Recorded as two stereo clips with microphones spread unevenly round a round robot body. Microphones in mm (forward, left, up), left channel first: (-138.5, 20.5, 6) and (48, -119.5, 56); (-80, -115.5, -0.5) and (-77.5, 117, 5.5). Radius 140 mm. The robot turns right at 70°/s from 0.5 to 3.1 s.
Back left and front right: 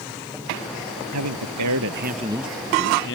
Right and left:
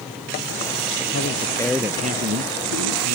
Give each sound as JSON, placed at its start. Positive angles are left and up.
{"t": 1.1, "sound": "a man speaking", "azimuth_deg": -45}